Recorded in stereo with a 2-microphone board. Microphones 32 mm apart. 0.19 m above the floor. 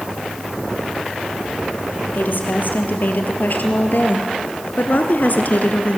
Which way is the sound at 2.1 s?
70° left (ahead or behind).